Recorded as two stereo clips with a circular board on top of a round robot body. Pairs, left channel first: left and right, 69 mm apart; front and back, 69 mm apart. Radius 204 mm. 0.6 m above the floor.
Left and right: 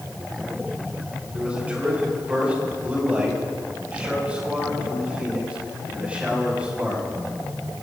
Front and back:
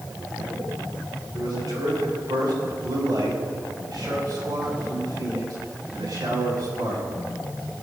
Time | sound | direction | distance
1.3 | a man speaking | 165° right | 7 m